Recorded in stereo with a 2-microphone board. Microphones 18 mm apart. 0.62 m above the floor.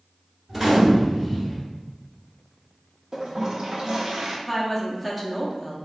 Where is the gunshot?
20° right (ahead or behind), 1.2 m.